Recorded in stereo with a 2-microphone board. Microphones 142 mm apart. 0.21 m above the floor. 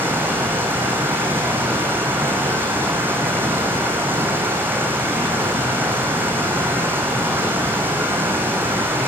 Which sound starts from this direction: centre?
Running water, at 0.0 s.